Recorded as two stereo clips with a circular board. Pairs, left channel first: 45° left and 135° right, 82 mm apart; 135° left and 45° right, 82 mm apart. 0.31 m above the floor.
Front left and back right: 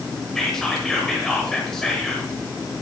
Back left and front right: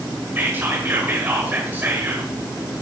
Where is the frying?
No frying in this recording.